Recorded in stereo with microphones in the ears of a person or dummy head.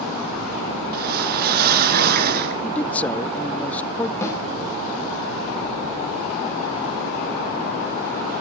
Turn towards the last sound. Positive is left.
turn(degrees=10)  # may be behind; listen again after turning